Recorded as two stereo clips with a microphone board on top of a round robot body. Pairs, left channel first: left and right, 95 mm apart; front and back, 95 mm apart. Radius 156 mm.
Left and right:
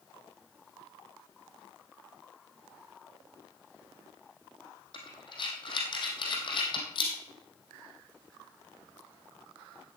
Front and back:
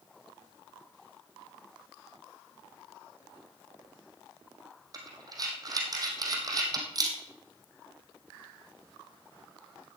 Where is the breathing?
130° left, 3 m.